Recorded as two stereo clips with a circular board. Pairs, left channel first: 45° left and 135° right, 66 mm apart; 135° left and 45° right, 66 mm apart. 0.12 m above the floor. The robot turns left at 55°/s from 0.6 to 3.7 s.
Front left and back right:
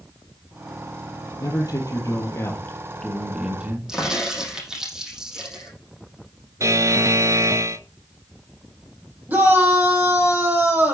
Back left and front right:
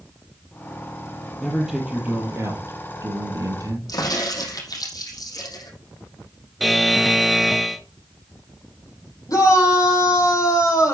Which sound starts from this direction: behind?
A shout, at 9.3 s.